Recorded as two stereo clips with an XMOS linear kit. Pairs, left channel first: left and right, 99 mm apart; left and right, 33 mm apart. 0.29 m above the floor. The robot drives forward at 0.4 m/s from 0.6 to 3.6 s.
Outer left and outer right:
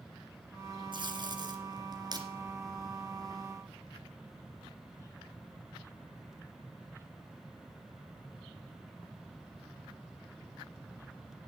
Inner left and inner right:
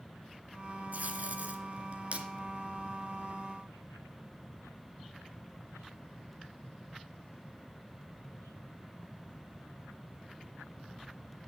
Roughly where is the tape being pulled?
Right.